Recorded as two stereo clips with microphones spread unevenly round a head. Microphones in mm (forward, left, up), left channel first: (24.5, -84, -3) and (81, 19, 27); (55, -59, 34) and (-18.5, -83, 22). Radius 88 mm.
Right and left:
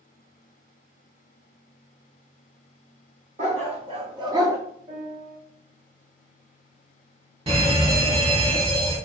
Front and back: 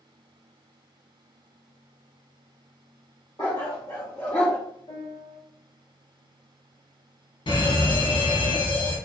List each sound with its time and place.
3.4 s a dog barking: 75° left, 1.5 m; by 4.6 s 85° left, 0.9 m
4.9 s a piano: 60° left, 4 m
7.5 s a fire alarm: 20° left, 3 m